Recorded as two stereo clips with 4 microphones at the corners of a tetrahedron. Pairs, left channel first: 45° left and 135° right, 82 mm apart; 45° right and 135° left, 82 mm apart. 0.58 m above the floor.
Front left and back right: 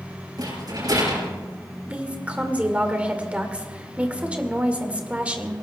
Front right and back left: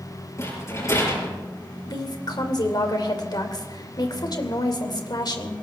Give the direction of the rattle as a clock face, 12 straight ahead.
3 o'clock.